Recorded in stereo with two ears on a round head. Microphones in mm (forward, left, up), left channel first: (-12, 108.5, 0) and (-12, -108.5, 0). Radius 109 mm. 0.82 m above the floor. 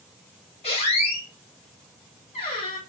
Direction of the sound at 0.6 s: 25° left (ahead or behind).